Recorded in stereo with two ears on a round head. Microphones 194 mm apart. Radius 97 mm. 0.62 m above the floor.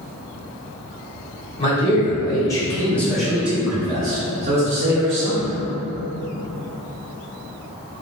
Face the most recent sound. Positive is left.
turn(degrees=-40)  # may be behind; listen again after turning